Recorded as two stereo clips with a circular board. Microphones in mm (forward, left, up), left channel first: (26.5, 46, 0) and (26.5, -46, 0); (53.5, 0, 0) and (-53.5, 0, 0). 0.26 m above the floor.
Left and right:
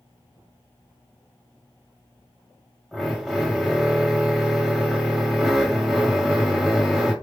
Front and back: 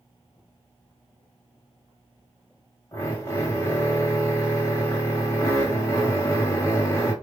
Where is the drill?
5° right, 1.4 m.